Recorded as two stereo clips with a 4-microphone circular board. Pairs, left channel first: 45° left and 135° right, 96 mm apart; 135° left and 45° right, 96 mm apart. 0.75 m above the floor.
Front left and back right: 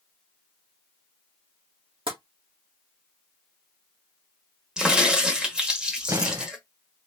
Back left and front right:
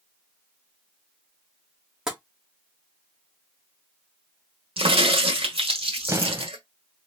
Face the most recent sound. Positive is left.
turn(degrees=-90)